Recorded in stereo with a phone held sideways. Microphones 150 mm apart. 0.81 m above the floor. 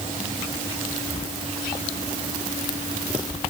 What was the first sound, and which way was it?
Only background noise.